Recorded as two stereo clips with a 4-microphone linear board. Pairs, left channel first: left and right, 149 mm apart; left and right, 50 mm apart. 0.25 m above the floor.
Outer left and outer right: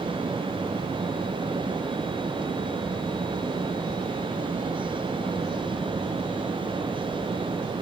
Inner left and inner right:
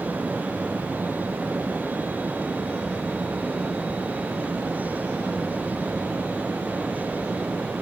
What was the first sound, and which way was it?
Only background noise.